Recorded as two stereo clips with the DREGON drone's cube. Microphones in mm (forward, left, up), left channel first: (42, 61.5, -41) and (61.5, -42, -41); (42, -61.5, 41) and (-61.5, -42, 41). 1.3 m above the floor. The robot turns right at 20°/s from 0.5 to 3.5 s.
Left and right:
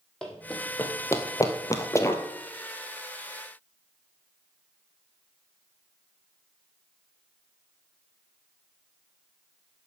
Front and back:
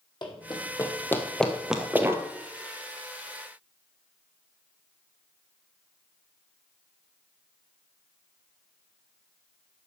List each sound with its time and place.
0.2 s running footsteps: 20° left, 2.5 m; by 2.2 s 150° left, 1.4 m